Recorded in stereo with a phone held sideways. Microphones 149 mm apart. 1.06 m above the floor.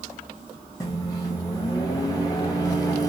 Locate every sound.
0.8 s a microwave: 25° left (ahead or behind), 0.6 m